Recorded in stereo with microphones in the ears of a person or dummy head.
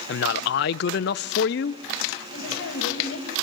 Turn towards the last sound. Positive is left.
turn(degrees=80)